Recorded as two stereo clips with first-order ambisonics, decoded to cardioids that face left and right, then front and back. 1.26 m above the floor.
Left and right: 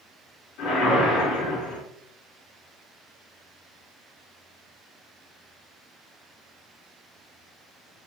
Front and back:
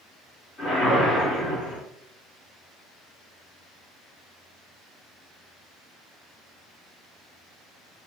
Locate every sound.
0.6 s a whoosh: 60° left, 3 m